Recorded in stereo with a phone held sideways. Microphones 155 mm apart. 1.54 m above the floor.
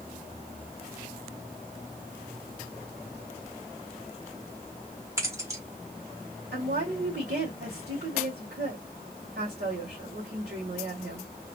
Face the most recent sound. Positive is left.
turn(degrees=-85)